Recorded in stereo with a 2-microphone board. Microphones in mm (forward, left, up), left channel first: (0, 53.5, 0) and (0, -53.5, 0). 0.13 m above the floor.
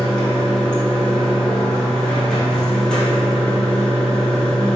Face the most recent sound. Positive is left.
turn(degrees=5)  # may be behind; listen again after turning